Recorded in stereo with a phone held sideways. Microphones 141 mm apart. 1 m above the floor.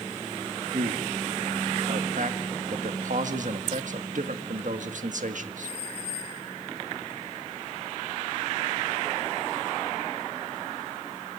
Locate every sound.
0.7 s a man speaking: 65° right (ahead or behind), 1.6 m